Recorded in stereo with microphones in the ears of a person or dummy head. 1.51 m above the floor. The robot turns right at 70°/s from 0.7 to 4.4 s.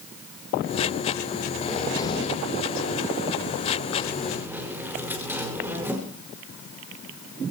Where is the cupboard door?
5° left, 5 m; by 6.0 s 165° right, 5 m.